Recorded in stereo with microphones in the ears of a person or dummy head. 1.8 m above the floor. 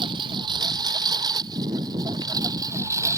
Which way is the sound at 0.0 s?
20° right (ahead or behind).